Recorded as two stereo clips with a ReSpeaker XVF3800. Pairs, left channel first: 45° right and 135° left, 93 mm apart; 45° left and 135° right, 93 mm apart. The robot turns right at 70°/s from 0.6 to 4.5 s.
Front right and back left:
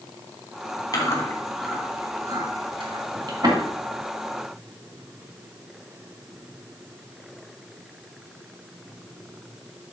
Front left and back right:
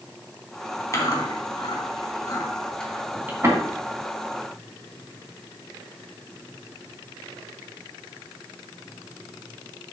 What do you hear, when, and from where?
0.9 s chewing: 10° right, 3 m; by 3.6 s 175° left, 3 m